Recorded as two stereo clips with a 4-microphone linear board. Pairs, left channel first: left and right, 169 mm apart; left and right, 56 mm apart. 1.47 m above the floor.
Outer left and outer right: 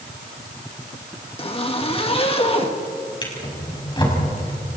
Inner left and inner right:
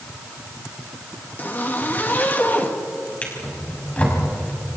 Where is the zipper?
30° left (ahead or behind), 1.9 m.